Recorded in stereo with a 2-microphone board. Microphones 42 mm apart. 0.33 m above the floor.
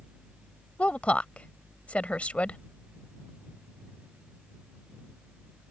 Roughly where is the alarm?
No alarm in this recording.